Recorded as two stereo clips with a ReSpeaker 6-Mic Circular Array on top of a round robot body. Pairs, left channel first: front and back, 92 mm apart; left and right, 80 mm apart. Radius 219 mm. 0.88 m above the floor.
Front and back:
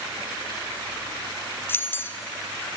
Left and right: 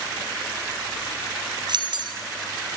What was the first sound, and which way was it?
Keys jangling, 65° right.